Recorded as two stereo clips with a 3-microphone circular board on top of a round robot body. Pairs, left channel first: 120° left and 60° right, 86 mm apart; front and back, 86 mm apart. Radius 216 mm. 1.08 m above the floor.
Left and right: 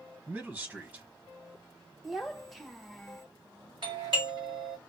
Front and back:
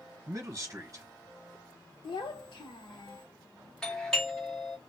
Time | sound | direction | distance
0.3 | a man speaking | 130° right | 1.3 m
2.0 | a child speaking | 30° left | 0.8 m
3.8 | a doorbell | 80° right | 2.5 m